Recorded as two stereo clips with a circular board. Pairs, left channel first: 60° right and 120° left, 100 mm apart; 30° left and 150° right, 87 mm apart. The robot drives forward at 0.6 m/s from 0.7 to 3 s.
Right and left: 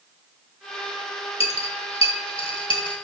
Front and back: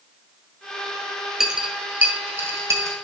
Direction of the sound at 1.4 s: 65° right.